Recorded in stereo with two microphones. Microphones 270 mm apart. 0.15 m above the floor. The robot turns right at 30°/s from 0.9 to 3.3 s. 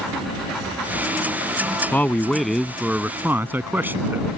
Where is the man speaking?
5° left (ahead or behind); by 4.3 s 10° right (ahead or behind).